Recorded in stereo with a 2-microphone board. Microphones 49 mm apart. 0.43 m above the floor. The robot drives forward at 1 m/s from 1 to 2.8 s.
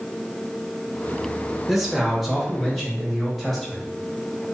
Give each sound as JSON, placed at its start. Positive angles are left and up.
{"t": 1.7, "sound": "a man speaking", "side_deg": -5, "distance_m": 0.9}